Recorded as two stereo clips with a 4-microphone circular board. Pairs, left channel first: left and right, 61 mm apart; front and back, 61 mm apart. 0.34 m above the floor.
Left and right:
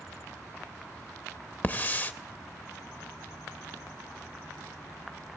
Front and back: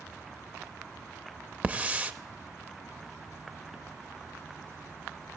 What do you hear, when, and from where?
1.6 s a hiss: 130° left, 0.6 m